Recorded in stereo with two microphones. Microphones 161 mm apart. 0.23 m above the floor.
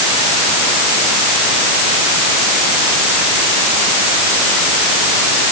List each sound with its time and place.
Only background noise.